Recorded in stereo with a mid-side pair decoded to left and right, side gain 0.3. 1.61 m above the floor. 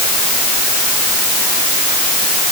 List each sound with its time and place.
Only background noise.